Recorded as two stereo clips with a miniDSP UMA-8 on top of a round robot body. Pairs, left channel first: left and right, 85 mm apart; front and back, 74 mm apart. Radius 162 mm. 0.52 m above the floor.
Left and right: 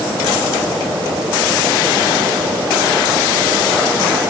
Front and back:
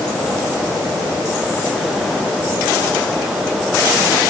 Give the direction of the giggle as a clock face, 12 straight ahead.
No giggle in this recording.